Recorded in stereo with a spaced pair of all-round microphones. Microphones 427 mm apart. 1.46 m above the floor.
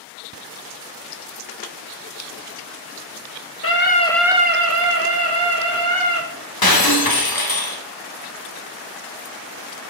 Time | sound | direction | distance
3.6 | a scream | 30° left (ahead or behind) | 1.3 m
6.6 | breaking glass | 55° left (ahead or behind) | 1.1 m